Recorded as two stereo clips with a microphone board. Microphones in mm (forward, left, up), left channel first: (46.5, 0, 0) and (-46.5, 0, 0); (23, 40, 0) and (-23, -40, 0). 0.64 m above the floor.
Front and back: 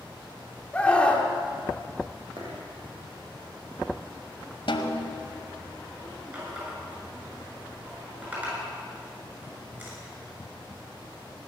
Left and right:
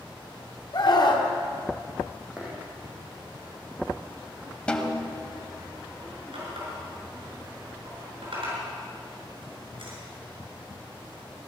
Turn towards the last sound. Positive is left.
turn(degrees=-110)